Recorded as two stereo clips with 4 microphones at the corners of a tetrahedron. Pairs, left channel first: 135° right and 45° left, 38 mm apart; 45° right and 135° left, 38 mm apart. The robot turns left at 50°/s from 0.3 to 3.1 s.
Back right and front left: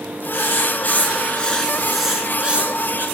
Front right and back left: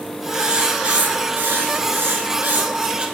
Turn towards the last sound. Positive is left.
turn(degrees=75)